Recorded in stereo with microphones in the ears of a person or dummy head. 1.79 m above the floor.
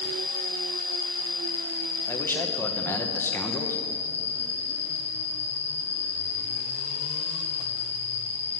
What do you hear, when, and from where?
0.0 s an insect: 10° right (ahead or behind), 1.3 m
2.1 s a man speaking: 15° left (ahead or behind), 1.3 m